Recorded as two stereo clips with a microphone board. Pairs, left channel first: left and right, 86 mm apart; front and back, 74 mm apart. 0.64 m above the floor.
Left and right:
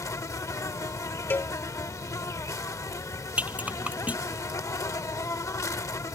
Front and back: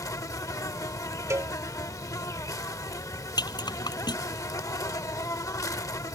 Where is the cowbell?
150° left.